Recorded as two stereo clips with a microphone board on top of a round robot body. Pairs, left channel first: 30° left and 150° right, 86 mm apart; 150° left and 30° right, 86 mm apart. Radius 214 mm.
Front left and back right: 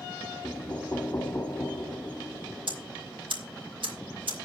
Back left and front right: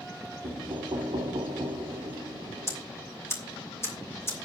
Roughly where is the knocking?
Ahead right.